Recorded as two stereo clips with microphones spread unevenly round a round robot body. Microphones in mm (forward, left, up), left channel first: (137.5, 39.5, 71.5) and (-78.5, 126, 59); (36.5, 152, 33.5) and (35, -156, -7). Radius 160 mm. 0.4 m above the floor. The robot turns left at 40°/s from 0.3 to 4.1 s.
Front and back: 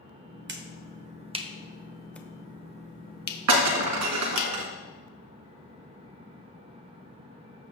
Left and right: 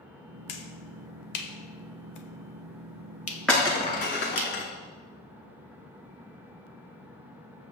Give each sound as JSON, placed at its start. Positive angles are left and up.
{"t": 0.5, "sound": "a finger snap", "azimuth_deg": 130, "distance_m": 1.3}
{"t": 3.5, "sound": "breaking glass", "azimuth_deg": 175, "distance_m": 2.0}